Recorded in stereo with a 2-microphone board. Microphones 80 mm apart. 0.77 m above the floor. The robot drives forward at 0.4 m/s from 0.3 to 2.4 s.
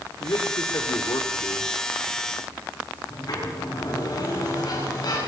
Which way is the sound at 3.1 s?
50° left (ahead or behind).